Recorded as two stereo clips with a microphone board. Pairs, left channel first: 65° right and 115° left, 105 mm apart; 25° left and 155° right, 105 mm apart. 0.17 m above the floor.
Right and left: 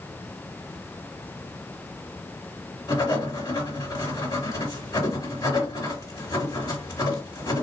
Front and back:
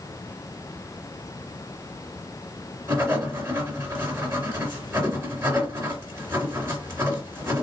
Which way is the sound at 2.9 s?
100° right.